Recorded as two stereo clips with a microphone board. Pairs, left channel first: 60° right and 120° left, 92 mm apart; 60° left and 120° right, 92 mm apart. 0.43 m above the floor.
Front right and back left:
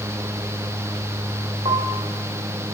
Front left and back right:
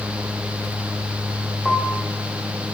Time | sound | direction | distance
1.6 | a piano | 150° left | 6 m